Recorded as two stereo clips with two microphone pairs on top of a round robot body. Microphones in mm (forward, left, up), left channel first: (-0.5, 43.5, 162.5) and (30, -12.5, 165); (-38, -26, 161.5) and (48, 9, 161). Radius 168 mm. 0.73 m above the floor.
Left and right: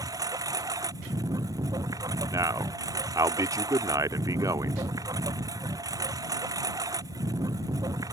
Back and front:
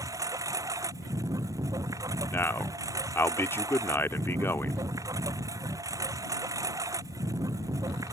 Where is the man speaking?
90° right.